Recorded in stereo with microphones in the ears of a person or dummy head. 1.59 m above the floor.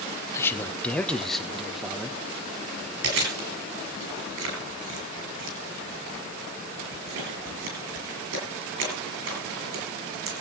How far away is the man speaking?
About 1.4 m.